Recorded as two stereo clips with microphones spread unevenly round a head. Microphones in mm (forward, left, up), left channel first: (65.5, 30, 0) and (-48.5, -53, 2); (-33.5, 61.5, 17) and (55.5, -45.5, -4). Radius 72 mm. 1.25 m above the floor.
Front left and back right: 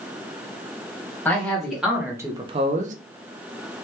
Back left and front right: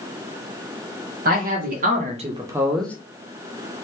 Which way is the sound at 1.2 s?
45° right.